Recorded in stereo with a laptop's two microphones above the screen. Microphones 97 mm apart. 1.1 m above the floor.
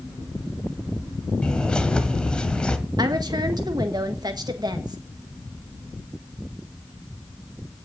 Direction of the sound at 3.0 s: 45° right (ahead or behind).